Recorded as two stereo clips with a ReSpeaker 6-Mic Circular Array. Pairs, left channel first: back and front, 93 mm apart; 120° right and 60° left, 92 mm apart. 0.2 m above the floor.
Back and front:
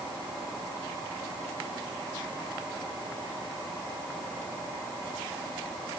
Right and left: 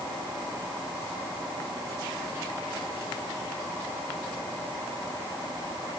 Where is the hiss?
I don't hear a hiss.